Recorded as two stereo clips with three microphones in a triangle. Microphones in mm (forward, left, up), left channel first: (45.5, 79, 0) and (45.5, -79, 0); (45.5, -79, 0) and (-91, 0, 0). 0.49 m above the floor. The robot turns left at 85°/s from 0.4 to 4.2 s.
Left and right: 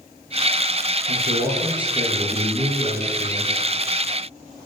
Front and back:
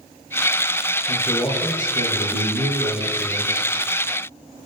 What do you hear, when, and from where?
1.1 s a man speaking: 85° right, 10 m; by 3.7 s 50° left, 10 m